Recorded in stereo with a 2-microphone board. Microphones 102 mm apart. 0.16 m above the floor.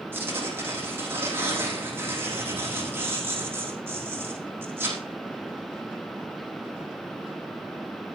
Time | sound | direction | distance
0.1 | tearing paper | 20° right (ahead or behind) | 8.5 m